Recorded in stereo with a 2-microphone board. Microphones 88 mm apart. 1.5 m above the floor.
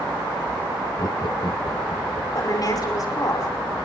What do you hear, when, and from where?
1.0 s laughter: 40° left (ahead or behind), 0.7 m; by 2.2 s 65° left (ahead or behind), 2.5 m
2.4 s a woman speaking: 45° left (ahead or behind), 5.5 m